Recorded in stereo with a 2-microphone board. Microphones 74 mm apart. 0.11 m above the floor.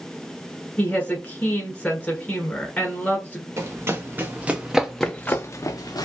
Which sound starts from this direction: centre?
A woman speaking, at 0.8 s.